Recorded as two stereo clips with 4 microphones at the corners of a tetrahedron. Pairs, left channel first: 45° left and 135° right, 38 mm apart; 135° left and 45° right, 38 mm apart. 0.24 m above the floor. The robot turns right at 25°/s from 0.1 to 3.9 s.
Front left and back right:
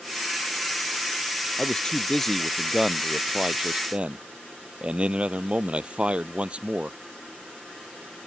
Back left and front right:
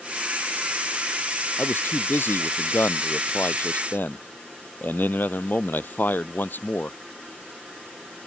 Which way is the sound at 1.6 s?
105° left.